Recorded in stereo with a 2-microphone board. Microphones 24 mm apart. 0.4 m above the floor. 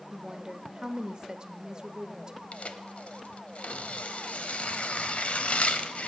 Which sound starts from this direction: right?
A woman speaking, at 0.1 s.